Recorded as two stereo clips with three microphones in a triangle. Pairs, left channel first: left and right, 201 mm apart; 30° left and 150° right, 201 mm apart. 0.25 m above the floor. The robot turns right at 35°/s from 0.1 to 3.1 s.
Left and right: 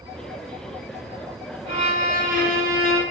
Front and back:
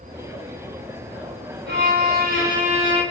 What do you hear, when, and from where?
1.7 s a violin: 145° right, 0.9 m; by 3.0 s 95° right, 0.9 m